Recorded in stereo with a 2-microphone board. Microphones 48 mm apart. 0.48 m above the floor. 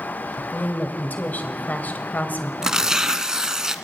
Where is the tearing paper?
15° right (ahead or behind), 1.3 m.